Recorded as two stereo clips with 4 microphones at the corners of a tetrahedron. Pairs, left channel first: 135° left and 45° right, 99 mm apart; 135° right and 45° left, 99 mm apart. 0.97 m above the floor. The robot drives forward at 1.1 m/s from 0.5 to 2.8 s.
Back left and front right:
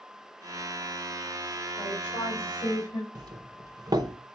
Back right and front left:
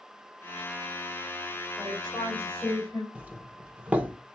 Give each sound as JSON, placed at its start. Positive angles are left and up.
{"t": 1.8, "sound": "a woman speaking", "azimuth_deg": 140, "distance_m": 3.0}
{"t": 3.1, "sound": "a doorbell", "azimuth_deg": -25, "distance_m": 0.8}